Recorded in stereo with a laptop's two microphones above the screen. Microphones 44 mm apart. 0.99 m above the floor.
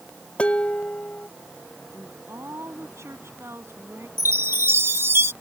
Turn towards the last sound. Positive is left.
turn(degrees=-70)  # may be behind; listen again after turning